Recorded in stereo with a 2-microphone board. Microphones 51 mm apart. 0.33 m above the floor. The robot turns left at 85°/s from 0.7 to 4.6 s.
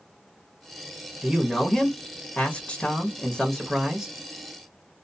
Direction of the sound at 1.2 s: 10° right (ahead or behind).